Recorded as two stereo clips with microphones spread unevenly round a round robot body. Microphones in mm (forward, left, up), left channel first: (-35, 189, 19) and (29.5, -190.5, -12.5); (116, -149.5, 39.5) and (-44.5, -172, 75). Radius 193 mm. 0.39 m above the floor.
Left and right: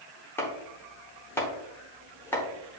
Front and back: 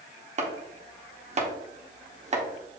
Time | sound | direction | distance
0.4 | chopping | 175° right | 0.9 m